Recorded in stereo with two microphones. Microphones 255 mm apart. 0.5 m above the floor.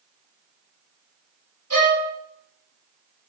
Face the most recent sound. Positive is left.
turn(degrees=-70)  # may be behind; listen again after turning